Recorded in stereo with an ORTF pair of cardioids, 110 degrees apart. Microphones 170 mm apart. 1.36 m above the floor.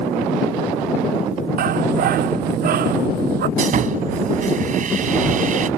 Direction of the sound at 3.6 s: 50° right.